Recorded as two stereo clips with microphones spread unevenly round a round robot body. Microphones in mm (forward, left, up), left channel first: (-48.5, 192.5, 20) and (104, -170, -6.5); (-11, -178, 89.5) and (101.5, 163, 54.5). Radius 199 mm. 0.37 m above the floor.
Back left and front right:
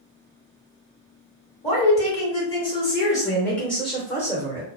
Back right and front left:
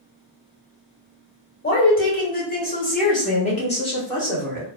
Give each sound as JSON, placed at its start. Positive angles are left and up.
{"t": 1.6, "sound": "a woman speaking", "azimuth_deg": -175, "distance_m": 1.6}